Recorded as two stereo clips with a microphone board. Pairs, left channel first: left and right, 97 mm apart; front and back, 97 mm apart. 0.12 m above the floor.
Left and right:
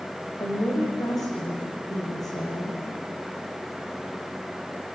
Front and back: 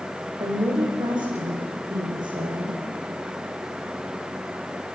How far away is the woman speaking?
About 7.5 m.